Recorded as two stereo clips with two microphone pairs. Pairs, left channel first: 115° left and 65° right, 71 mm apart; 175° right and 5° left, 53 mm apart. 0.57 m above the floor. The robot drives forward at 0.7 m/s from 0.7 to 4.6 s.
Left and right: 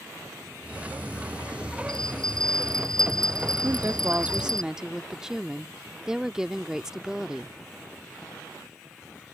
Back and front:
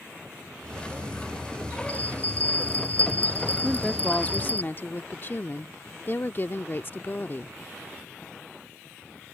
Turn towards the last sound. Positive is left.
turn(degrees=-140)